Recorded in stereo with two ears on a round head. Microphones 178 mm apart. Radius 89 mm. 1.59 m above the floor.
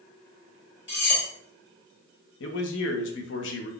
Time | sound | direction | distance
0.9 | cutlery clinking | 60° left (ahead or behind) | 1.8 m
2.4 | a man speaking | 65° left (ahead or behind) | 0.6 m